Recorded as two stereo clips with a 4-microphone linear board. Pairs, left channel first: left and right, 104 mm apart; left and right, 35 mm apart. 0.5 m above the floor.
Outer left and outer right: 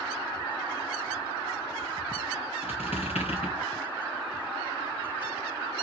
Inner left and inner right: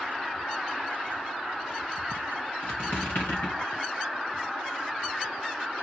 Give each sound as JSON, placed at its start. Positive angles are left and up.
{"t": 2.6, "sound": "a squeak", "side_deg": 80, "distance_m": 4.0}